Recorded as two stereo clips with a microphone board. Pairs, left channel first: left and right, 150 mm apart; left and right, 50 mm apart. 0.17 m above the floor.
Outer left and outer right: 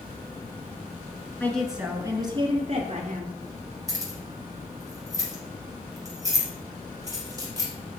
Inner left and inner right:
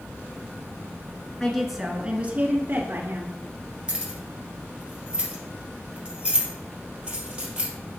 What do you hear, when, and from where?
1.4 s a woman speaking: 10° left (ahead or behind), 1.6 m; by 3.4 s 60° right (ahead or behind), 2.5 m
3.9 s keys jangling: 20° right (ahead or behind), 2.5 m